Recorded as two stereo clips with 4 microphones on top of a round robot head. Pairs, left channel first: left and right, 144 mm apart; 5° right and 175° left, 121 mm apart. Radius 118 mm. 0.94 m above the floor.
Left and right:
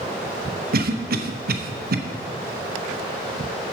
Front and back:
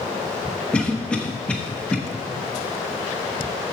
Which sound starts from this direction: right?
A cough, at 0.7 s.